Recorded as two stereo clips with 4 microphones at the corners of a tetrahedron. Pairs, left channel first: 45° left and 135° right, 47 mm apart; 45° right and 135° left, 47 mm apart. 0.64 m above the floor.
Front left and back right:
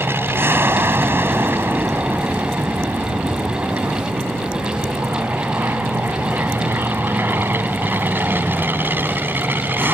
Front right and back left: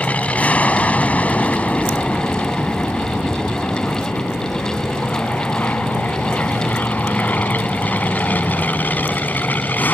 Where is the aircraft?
105° right; by 10.0 s 95° right.